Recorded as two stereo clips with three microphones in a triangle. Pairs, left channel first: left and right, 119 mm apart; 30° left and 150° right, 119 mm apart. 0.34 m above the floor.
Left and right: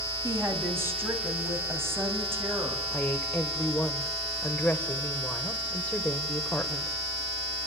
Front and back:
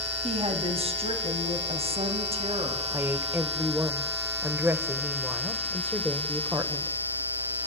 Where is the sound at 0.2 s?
155° right, 2.5 m.